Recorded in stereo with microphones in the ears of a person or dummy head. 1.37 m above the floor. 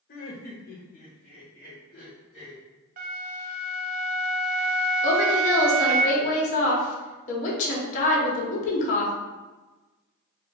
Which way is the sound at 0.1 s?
45° left (ahead or behind).